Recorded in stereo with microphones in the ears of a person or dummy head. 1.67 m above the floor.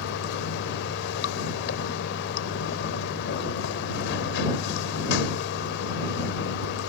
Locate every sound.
0.0 s running water: 75° left (ahead or behind)